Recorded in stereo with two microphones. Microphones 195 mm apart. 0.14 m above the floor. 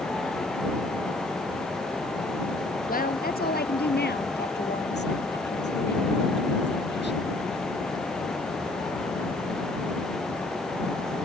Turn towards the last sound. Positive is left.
turn(degrees=70)  # may be behind; listen again after turning